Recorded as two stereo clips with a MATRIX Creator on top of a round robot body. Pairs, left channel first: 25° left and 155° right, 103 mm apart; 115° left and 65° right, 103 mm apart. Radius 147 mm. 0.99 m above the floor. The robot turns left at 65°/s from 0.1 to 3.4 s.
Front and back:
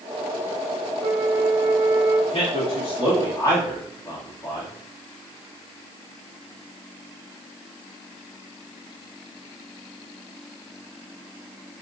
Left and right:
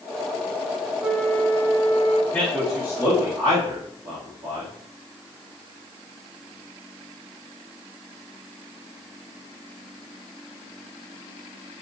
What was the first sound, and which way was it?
A flute, 140° right.